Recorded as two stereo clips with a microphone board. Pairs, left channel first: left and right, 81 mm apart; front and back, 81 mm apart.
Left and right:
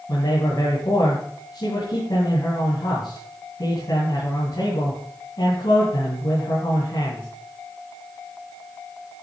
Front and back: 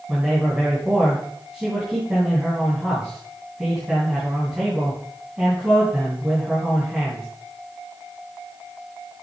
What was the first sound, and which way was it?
A man speaking, 100° left.